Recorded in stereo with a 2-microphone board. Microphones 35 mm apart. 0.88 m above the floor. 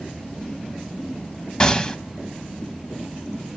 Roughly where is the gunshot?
Left.